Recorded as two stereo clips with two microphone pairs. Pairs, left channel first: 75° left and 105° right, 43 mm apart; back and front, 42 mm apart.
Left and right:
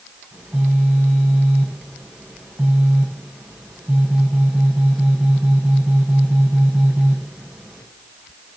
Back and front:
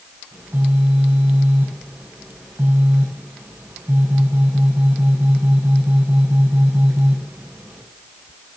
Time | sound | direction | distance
0.3 | a phone buzzing | 30° right | 7 m